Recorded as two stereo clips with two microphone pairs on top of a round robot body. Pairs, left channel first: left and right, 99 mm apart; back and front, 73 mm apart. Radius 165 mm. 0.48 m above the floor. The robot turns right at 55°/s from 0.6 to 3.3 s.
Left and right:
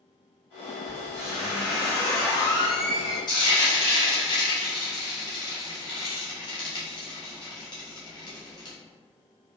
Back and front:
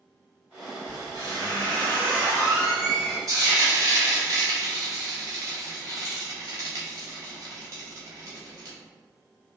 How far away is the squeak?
About 1.4 m.